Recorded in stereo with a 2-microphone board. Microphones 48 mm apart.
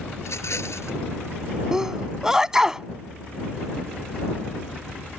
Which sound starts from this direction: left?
A rattle, at 0.2 s.